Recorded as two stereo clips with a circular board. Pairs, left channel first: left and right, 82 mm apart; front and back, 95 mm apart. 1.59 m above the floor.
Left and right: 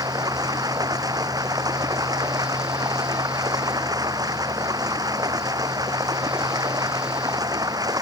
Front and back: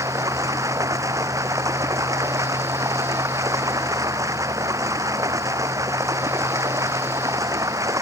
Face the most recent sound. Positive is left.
turn(degrees=-125)